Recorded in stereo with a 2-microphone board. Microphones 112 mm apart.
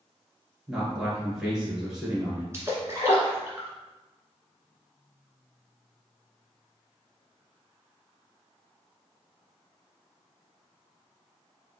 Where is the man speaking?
10° right (ahead or behind), 1.8 m.